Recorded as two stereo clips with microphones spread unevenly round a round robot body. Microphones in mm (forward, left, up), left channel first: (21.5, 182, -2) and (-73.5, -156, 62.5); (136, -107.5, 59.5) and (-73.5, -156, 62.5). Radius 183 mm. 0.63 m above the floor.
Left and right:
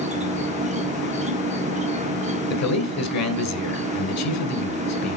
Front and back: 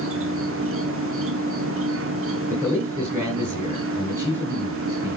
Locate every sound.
0.0 s an insect: straight behind, 0.8 m
2.5 s a man speaking: 110° left, 2 m